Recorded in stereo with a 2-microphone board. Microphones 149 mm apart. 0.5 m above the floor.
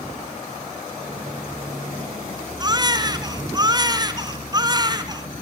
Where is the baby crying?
25° right (ahead or behind), 1.8 m.